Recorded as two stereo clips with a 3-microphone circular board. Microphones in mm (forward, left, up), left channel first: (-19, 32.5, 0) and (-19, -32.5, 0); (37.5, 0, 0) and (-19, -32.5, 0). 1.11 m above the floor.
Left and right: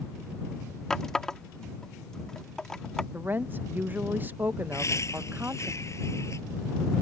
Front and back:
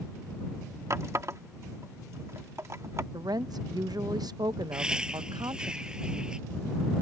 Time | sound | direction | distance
0.9 | a running tap | 170° left | ?
3.1 | a woman speaking | 150° right | ?
4.7 | laughter | 135° left | ?